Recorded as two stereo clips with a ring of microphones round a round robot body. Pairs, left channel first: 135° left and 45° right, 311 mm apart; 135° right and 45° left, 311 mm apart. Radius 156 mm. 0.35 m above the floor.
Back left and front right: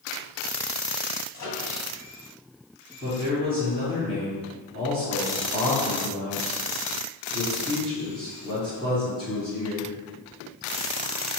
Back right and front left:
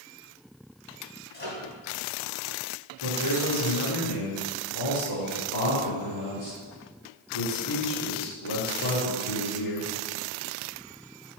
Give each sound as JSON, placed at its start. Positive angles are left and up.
{"t": 1.3, "sound": "a microwave", "azimuth_deg": 170, "distance_m": 2.5}
{"t": 3.0, "sound": "a man speaking", "azimuth_deg": -150, "distance_m": 3.5}